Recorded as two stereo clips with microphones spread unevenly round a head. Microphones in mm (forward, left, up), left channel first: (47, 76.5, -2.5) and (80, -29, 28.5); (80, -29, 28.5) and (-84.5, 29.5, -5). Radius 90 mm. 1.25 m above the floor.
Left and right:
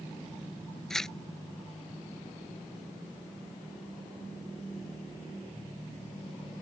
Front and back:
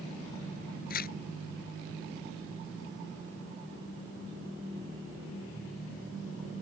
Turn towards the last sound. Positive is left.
turn(degrees=20)